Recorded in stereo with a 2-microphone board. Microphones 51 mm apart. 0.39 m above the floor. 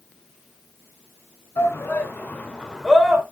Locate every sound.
1.6 s a shout: 55° left (ahead or behind), 2.5 m; by 3.2 s 5° right (ahead or behind), 1.9 m